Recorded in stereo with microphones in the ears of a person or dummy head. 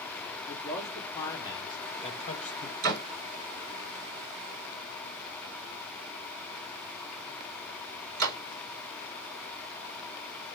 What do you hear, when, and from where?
0.5 s a man speaking: 20° left (ahead or behind), 3 m; by 2.7 s 55° left (ahead or behind), 2 m
2.8 s a door slam: 50° right (ahead or behind), 4 m